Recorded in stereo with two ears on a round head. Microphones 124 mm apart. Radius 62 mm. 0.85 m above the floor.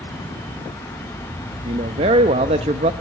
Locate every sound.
1.6 s a man speaking: 45° right (ahead or behind), 1.0 m